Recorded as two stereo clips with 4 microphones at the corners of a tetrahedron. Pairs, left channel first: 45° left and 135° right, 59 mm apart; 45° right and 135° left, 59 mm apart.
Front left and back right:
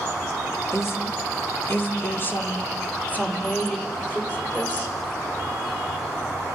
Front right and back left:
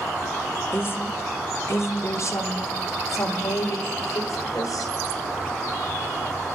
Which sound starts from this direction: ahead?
A woman speaking, at 0.7 s.